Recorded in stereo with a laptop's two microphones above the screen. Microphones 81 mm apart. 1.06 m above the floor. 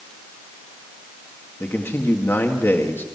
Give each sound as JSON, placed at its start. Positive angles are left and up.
{"t": 1.6, "sound": "a man speaking", "side_deg": 25, "distance_m": 2.0}